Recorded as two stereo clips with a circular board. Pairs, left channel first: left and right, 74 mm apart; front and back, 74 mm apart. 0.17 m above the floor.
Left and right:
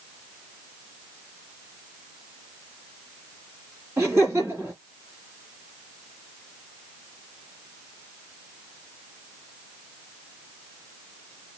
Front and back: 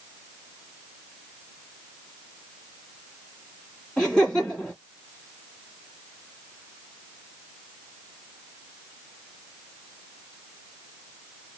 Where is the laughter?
70° right, 1.7 m.